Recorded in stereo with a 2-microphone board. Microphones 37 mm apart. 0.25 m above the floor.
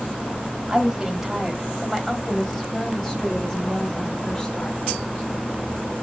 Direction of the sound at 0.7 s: 15° right (ahead or behind).